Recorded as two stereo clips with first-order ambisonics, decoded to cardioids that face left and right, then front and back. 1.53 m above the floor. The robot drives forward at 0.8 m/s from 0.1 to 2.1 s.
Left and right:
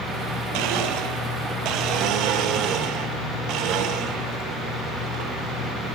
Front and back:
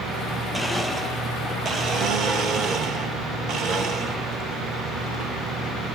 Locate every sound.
0.5 s a blender: 95° right, 1.8 m; by 6.0 s 130° right, 2 m